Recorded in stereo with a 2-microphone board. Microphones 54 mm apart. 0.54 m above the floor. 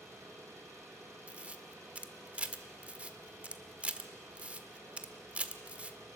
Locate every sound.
0.0 s an engine running: 70° right (ahead or behind), 8.5 m
1.3 s a camera shutter: 25° right (ahead or behind), 1.2 m